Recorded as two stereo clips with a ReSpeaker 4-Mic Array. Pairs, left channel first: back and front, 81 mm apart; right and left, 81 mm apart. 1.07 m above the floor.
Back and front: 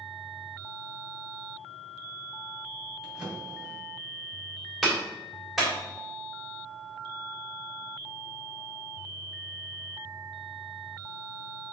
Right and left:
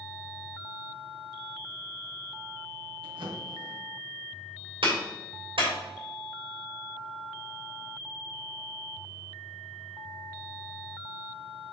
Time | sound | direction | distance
3.0 | a drawer | 85° left | 2.5 m
4.8 | a clap | 90° left | 3 m